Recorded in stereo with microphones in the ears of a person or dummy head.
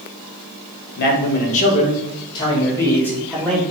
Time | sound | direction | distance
1.0 | a man speaking | 50° left (ahead or behind) | 1.4 m